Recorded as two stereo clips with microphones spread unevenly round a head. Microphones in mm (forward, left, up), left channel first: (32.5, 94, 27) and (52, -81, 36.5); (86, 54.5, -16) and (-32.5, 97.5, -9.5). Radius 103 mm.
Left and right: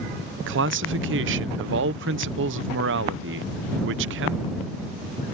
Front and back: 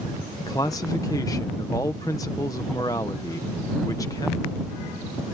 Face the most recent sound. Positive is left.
turn(degrees=-95)